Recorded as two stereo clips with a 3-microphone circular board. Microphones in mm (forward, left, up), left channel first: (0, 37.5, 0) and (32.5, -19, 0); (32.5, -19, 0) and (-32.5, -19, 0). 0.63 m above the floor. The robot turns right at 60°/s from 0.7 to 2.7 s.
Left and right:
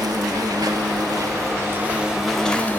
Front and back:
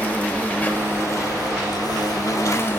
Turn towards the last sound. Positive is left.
turn(degrees=55)